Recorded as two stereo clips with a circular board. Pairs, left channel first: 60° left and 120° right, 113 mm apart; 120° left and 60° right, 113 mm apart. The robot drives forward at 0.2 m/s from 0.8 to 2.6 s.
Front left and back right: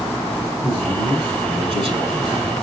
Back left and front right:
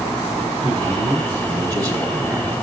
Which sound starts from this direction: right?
A man speaking, at 0.6 s.